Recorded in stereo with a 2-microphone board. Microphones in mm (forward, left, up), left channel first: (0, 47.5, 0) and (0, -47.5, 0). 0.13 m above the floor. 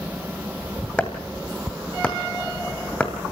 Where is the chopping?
10° left (ahead or behind), 2 m.